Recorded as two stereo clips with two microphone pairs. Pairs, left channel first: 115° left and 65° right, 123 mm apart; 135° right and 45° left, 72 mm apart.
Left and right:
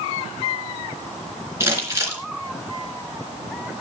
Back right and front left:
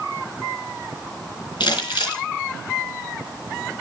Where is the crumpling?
135° right, 3.5 m.